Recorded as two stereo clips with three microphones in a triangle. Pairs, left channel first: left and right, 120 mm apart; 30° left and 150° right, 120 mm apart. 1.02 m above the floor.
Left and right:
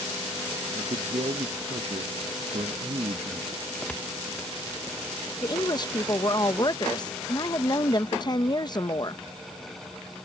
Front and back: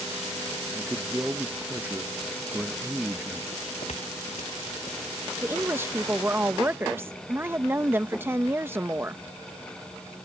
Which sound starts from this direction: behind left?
A woman speaking, at 5.4 s.